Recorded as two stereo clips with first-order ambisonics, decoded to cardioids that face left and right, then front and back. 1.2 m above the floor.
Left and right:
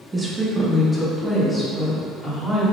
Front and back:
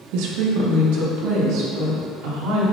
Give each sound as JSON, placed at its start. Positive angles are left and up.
{"t": 0.1, "sound": "a woman speaking", "azimuth_deg": -165, "distance_m": 1.2}